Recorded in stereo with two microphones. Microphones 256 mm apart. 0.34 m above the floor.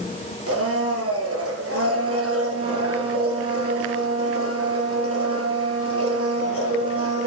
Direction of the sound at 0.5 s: 65° right (ahead or behind).